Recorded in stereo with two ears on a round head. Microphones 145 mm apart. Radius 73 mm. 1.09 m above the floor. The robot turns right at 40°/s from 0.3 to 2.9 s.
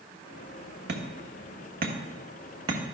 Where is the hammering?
70° right (ahead or behind), 1.3 m; by 2.8 s 25° right (ahead or behind), 1.3 m.